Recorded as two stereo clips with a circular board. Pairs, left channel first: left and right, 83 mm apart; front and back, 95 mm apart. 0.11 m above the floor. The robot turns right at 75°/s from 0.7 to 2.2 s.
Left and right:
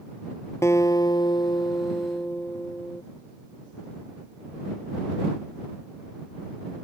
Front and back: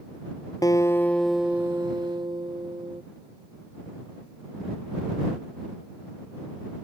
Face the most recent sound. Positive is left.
turn(degrees=155)